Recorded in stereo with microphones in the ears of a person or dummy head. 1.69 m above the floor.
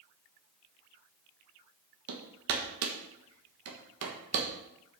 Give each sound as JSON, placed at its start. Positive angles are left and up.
{"t": 2.1, "sound": "hammering", "side_deg": -65, "distance_m": 1.4}